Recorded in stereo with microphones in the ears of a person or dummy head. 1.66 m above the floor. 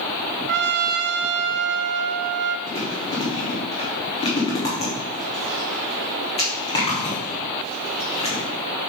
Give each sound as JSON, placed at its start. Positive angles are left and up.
{"t": 0.5, "sound": "a trumpet", "side_deg": -55, "distance_m": 0.6}
{"t": 2.7, "sound": "chewing", "side_deg": 30, "distance_m": 3.0}